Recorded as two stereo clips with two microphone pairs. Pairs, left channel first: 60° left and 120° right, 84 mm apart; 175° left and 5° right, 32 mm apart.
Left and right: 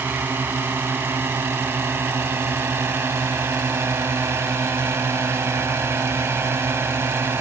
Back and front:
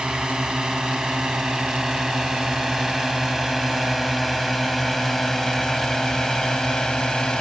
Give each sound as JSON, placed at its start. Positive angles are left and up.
{"t": 0.0, "sound": "a drone", "azimuth_deg": -65}